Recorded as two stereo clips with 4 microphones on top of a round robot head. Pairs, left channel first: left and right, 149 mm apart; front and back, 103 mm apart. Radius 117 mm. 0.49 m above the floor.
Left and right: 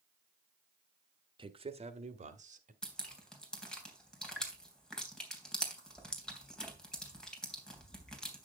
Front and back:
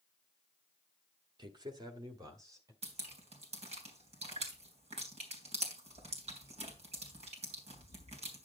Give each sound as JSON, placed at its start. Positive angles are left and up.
{"t": 1.4, "sound": "a man speaking", "azimuth_deg": -140, "distance_m": 1.6}
{"t": 2.8, "sound": "dripping", "azimuth_deg": 175, "distance_m": 3.0}